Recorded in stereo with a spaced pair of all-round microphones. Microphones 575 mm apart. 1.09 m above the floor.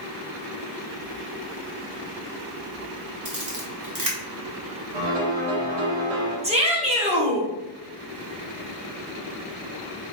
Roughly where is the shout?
Centre.